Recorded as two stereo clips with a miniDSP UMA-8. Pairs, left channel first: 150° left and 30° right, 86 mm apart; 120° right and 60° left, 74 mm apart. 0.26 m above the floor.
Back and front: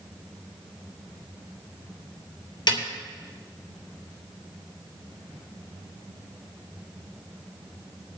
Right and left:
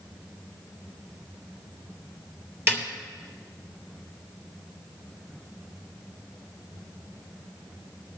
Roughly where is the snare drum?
Behind left.